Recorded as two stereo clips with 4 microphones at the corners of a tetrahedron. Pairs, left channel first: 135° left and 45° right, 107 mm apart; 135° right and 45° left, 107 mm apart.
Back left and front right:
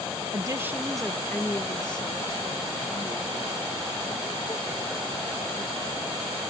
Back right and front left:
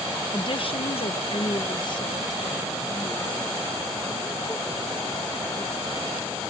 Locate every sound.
0.3 s a woman speaking: 95° right; by 6.4 s 155° left